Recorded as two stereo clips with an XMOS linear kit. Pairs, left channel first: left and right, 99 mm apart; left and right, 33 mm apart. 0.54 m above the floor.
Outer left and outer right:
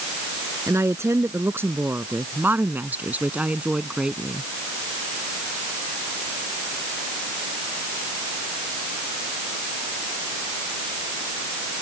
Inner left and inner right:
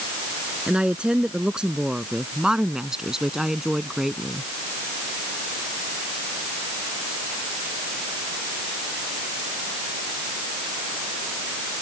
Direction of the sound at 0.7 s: 30° right (ahead or behind).